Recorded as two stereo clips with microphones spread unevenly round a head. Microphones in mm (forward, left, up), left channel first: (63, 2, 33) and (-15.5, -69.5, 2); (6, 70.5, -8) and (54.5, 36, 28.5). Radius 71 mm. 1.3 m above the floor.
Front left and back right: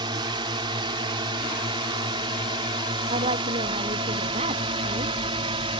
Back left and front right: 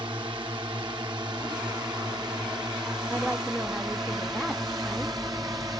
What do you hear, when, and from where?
0.0 s a drone: 95° right; by 5.8 s 105° right
3.1 s a woman speaking: 110° right